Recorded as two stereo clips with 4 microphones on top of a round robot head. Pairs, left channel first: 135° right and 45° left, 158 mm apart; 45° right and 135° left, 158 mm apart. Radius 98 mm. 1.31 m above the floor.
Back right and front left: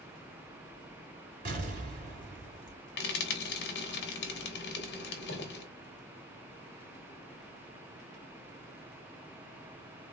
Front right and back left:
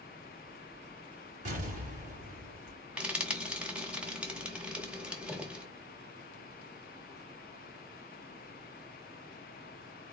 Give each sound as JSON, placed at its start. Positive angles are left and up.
{"t": 1.4, "sound": "an explosion", "azimuth_deg": 85, "distance_m": 3.0}
{"t": 3.0, "sound": "frying", "azimuth_deg": -145, "distance_m": 1.6}